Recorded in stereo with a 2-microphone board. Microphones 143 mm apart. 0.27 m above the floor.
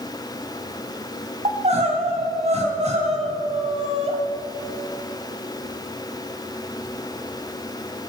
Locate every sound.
1.4 s crying: 50° right (ahead or behind), 2 m